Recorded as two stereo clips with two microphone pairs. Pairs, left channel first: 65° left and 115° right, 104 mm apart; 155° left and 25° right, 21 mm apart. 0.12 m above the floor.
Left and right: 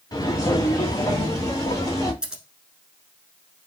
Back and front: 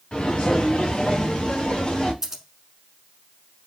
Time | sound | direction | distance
0.1 | footsteps | 115° left | 0.9 m
2.2 | scissors | 45° right | 0.9 m